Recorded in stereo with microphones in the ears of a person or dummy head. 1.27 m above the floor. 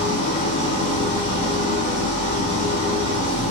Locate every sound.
0.0 s an engine running: 45° right (ahead or behind), 1.7 m